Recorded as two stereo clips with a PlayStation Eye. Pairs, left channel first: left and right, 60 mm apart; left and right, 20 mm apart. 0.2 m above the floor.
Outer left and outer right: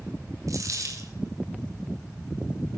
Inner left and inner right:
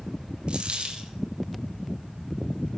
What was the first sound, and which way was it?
A dropped coin, 65° right (ahead or behind).